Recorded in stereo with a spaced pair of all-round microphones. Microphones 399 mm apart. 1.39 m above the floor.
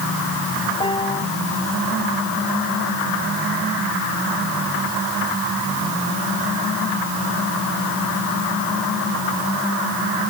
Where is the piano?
15° left (ahead or behind).